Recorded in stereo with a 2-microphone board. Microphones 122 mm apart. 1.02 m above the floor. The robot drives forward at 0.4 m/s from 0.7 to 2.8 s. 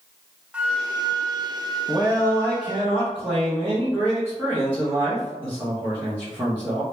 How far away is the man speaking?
About 0.7 m.